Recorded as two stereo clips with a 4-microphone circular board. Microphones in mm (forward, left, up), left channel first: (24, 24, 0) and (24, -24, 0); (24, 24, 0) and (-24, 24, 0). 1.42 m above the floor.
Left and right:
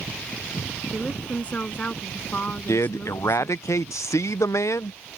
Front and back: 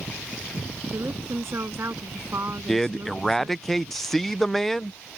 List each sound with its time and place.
0.9 s a woman speaking: 150° left; by 3.7 s 145° left
2.7 s a man speaking: 85° left